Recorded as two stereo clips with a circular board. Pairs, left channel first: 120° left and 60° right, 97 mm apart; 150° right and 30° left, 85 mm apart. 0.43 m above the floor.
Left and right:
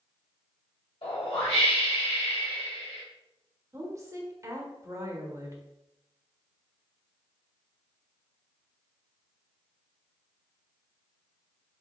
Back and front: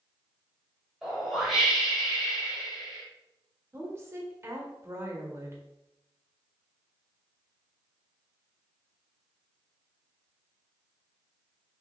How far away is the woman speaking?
About 1.1 m.